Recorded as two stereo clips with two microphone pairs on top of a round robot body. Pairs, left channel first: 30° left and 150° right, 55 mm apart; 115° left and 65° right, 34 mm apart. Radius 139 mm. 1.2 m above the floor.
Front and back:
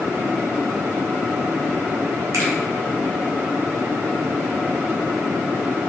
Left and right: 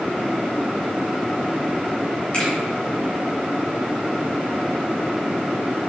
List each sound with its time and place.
2.3 s a finger snap: straight behind, 2 m